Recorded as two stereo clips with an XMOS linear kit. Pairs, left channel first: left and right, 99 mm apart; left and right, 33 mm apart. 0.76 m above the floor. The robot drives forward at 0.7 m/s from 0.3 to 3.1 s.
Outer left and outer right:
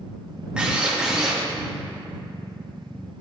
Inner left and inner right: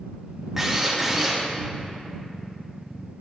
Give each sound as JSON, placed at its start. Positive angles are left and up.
{"t": 0.6, "sound": "a drill", "side_deg": -10, "distance_m": 1.2}